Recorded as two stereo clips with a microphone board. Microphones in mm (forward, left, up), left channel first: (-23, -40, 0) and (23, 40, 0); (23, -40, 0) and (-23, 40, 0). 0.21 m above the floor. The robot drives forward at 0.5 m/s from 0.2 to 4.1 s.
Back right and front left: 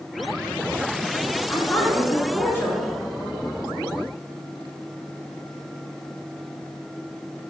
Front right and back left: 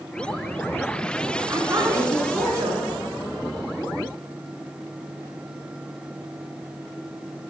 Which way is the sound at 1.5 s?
170° left.